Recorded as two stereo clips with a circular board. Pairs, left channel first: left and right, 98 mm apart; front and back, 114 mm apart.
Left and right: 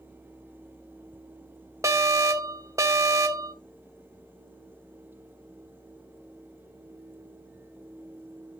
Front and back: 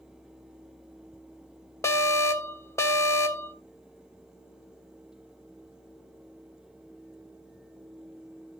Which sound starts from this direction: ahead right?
An alarm, at 1.8 s.